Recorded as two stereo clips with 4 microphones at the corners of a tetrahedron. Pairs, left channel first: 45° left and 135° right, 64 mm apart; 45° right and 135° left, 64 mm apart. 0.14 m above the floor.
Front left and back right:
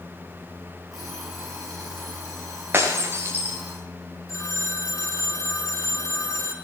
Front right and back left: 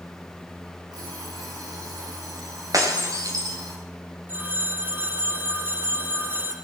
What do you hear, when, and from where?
0.9 s an alarm clock: 140° left, 9 m
2.7 s breaking glass: 170° left, 6 m
4.3 s a phone ringing: 80° left, 2.5 m